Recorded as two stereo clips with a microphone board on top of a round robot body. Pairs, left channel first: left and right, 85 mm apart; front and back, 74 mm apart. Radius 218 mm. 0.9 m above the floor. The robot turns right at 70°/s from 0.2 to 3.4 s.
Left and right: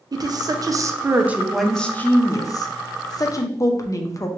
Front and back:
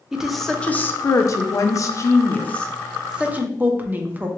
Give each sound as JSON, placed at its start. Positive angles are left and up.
{"t": 0.1, "sound": "a woman speaking", "azimuth_deg": -100, "distance_m": 0.6}